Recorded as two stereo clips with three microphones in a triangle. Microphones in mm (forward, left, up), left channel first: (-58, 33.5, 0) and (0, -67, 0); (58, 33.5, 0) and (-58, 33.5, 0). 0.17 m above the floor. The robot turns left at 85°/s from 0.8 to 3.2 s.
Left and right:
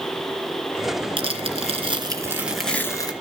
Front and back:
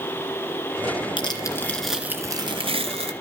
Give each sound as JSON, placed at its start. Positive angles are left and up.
{"t": 1.2, "sound": "tearing paper", "azimuth_deg": -30, "distance_m": 2.5}